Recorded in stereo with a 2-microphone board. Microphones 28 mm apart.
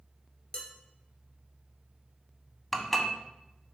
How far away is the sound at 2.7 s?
About 0.8 m.